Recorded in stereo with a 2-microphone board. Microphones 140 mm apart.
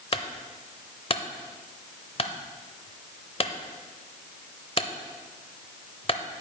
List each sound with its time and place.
0.1 s a clunk: 40° left (ahead or behind), 0.6 m